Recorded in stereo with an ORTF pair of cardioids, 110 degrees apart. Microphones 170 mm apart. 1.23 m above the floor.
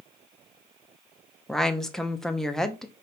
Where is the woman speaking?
5° left, 0.7 m.